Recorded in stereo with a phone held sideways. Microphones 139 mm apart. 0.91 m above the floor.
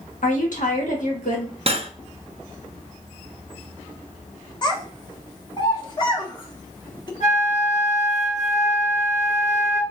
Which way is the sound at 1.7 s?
45° right (ahead or behind).